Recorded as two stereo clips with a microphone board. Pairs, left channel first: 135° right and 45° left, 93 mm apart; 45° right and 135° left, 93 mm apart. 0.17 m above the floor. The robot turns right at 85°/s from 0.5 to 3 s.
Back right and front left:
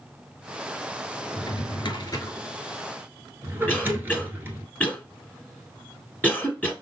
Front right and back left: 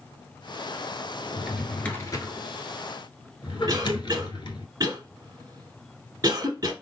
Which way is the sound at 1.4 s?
160° right.